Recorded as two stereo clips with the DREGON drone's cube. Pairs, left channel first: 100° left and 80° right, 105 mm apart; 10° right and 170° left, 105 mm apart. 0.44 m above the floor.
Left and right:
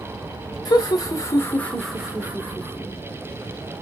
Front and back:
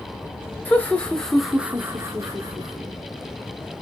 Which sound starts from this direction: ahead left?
Laughter, at 0.7 s.